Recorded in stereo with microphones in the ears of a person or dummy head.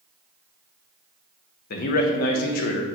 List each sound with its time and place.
1.7 s a man speaking: 60° left (ahead or behind), 0.6 m